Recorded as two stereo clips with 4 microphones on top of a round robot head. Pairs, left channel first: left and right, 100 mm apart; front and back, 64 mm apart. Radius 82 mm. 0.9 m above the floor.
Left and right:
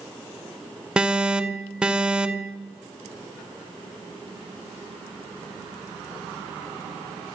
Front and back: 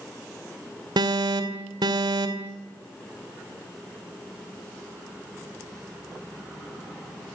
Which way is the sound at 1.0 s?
170° right.